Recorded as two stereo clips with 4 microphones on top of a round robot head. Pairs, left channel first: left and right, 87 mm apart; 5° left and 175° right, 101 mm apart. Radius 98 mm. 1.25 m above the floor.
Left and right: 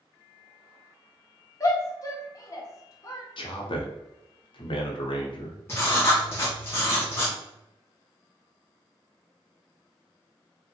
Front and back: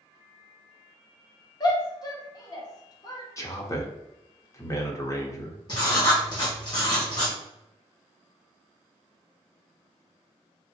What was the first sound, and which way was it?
A shout, 50° left.